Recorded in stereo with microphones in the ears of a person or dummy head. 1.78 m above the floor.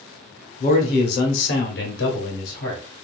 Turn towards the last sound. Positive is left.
turn(degrees=65)  # may be behind; listen again after turning